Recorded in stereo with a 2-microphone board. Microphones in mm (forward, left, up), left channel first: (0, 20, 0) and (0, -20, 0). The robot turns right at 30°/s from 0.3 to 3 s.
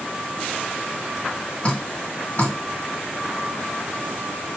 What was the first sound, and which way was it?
Dripping, 40° left (ahead or behind).